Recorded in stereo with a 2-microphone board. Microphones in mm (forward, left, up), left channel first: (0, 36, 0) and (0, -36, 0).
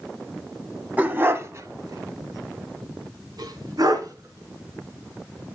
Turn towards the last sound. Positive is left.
turn(degrees=-50)  # may be behind; listen again after turning